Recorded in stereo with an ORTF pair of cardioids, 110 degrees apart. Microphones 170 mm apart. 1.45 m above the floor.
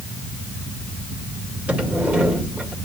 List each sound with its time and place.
0.0 s a fan: 50° right, 2 m
1.7 s a sliding door: 5° right, 2.5 m